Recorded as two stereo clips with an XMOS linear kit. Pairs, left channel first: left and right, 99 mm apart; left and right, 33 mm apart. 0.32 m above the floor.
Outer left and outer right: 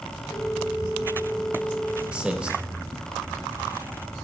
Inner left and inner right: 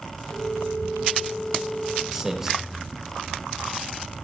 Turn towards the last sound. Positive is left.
turn(degrees=-10)  # may be behind; listen again after turning